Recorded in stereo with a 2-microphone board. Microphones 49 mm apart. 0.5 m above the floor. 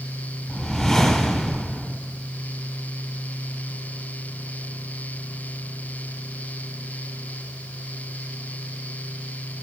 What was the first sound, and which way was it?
A whoosh, 15° left (ahead or behind).